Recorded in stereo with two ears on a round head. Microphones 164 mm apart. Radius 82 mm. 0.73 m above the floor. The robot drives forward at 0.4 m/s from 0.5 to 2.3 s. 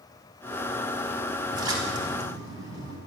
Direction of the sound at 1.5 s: 20° right (ahead or behind).